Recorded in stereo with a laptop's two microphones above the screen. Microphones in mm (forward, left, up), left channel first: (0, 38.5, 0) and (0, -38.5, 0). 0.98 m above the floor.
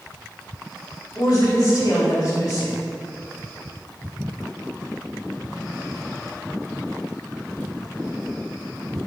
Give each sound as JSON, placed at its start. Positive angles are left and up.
{"t": 1.1, "sound": "a woman speaking", "side_deg": 45, "distance_m": 1.6}